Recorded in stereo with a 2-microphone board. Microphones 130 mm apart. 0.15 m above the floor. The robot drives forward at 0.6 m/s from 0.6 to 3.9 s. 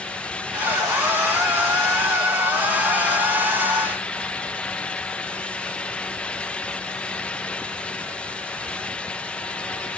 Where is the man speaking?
No man speaking in this recording.